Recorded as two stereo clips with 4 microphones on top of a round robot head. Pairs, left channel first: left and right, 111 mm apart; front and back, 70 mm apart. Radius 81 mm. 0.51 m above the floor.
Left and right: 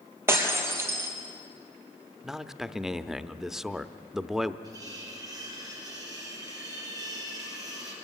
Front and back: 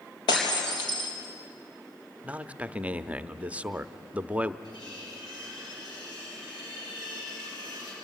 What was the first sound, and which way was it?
Breaking glass, 20° right.